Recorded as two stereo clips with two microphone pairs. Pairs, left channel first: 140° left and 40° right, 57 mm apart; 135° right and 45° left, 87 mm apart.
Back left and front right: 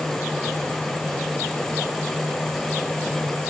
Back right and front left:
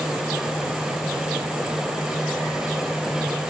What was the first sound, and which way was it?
Only background noise.